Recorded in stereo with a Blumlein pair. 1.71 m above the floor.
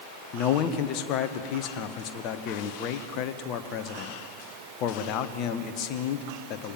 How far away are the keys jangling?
I don't hear keys jangling.